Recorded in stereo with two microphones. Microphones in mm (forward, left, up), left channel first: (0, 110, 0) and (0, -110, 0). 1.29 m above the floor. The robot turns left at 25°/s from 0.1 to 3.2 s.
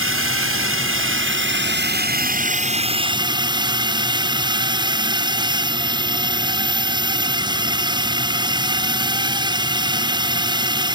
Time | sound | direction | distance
0.0 | a drone | 80° right | ?